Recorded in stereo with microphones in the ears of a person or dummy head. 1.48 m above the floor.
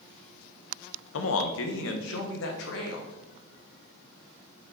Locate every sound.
1.1 s a man speaking: 65° left (ahead or behind), 0.8 m